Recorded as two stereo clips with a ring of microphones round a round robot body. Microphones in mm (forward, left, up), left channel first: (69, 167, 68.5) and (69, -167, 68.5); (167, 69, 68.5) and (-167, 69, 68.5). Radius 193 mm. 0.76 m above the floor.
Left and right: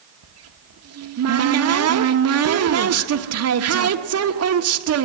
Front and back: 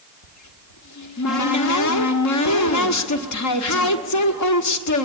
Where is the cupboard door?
45° right, 1.4 m.